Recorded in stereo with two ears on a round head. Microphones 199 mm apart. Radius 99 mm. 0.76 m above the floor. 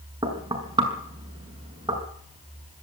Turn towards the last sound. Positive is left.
turn(degrees=-20)  # may be behind; listen again after turning